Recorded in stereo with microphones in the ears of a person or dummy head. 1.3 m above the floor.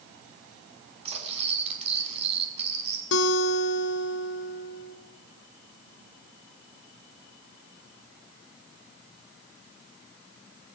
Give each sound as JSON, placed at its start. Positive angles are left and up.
{"t": 1.1, "sound": "cutlery clinking", "side_deg": -30, "distance_m": 5.5}
{"t": 3.1, "sound": "a guitar", "side_deg": 65, "distance_m": 1.8}